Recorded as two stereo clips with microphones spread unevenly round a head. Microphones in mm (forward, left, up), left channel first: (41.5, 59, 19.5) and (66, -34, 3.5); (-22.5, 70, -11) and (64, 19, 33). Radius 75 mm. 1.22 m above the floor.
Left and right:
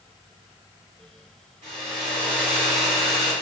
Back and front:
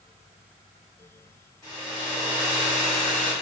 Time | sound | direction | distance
1.6 | a hair dryer | 130° right | 1.2 m